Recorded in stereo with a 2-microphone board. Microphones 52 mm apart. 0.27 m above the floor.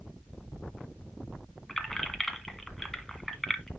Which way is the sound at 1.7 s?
5° left (ahead or behind).